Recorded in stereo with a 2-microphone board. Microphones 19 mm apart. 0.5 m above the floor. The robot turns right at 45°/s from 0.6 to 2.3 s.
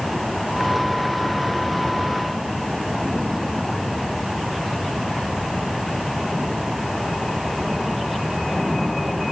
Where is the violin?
No violin in this recording.